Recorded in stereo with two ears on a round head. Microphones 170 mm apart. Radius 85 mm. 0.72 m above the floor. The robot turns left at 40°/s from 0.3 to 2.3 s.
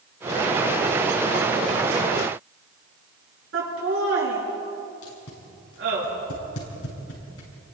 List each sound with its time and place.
3.5 s laughter: 75° right (ahead or behind), 8 m
5.0 s tape being pulled: 85° left, 6.5 m